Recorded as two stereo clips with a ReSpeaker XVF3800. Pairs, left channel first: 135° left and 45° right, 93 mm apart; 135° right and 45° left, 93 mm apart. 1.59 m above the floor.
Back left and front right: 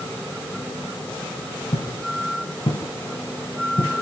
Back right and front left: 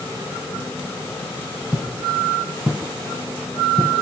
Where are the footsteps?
140° left, 6 m; by 3.9 s 130° left, 5.5 m.